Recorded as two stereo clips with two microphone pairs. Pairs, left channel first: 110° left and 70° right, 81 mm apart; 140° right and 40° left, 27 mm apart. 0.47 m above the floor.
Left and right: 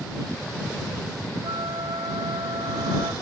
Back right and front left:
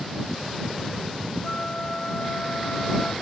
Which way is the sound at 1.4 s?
90° right.